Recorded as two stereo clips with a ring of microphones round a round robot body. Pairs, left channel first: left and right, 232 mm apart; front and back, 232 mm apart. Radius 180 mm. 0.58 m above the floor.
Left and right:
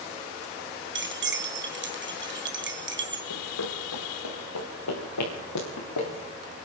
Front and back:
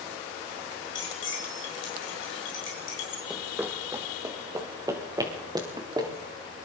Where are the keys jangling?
50° right, 3.5 m.